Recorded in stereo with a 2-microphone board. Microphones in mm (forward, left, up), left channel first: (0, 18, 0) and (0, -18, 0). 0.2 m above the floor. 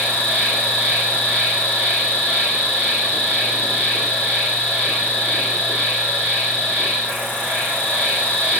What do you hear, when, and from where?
0.0 s an insect: 85° left, 1.6 m